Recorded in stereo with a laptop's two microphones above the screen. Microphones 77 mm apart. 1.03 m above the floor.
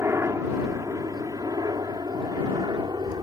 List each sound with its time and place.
0.0 s a helicopter: 35° right (ahead or behind); by 3.2 s 65° right (ahead or behind)